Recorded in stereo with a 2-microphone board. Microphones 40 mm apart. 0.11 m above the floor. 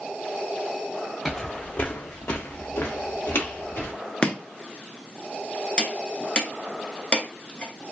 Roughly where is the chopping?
Left.